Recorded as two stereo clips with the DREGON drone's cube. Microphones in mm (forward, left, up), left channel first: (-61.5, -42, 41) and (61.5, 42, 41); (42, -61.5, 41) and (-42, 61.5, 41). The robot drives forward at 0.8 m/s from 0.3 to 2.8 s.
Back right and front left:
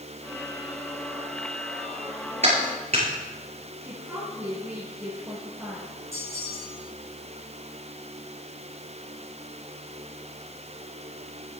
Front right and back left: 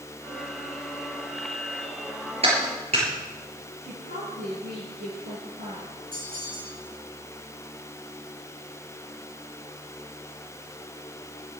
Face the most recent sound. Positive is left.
turn(degrees=105)